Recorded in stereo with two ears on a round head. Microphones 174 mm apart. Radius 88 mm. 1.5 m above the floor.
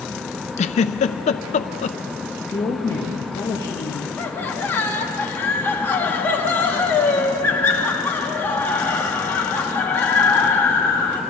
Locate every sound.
0.6 s a giggle: 35° left (ahead or behind), 0.6 m
2.5 s a woman speaking: 20° left (ahead or behind), 2 m
4.2 s laughter: 10° left (ahead or behind), 2 m